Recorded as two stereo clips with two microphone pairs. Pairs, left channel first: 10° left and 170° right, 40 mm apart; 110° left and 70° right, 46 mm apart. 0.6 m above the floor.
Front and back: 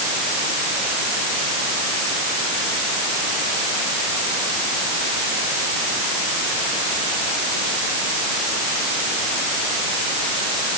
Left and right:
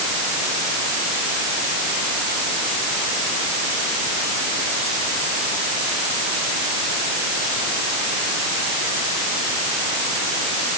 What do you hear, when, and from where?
Only background noise.